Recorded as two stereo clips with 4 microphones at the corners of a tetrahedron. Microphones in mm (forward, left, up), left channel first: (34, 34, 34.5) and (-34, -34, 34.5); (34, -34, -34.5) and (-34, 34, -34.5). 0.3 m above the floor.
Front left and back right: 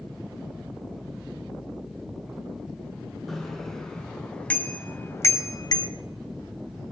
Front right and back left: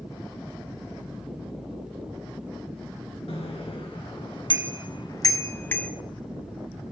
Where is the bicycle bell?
45° right, 3 m; by 5.9 s 30° left, 1.1 m.